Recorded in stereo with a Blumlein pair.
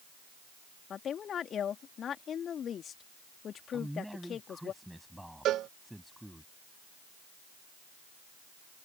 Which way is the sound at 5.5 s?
30° right.